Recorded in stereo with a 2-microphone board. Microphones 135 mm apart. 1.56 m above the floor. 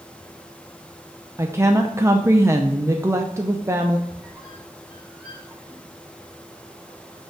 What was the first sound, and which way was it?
A woman speaking, 20° right (ahead or behind).